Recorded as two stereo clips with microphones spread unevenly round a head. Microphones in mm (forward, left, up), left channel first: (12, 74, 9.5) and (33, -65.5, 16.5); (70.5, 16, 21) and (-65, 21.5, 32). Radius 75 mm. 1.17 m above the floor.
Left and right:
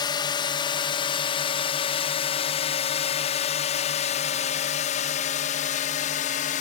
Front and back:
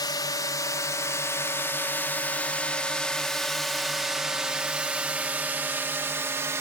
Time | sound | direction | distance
0.0 | a drone | 50° left | ?